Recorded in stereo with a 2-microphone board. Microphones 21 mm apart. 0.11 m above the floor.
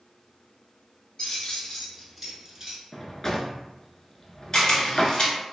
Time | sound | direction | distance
1.2 | keys jangling | 40° left (ahead or behind) | 1.2 m
2.9 | a drawer | 25° left (ahead or behind) | 0.5 m
4.5 | a camera shutter | 30° left (ahead or behind) | 1.0 m